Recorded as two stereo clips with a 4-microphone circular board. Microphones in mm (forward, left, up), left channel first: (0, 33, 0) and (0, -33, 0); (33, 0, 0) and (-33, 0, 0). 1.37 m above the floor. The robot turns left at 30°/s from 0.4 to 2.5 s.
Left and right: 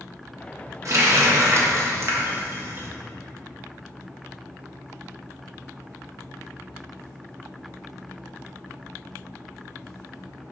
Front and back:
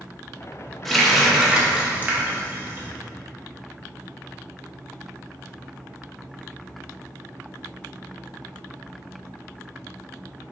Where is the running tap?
85° right, 0.7 m; by 2.9 s 135° right, 0.7 m.